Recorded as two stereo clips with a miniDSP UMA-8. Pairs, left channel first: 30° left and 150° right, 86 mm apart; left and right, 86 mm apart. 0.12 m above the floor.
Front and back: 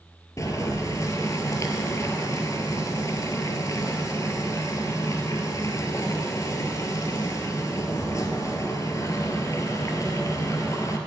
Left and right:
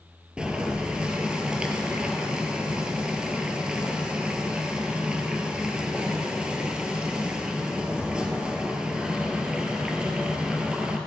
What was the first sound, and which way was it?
Boiling, 15° right.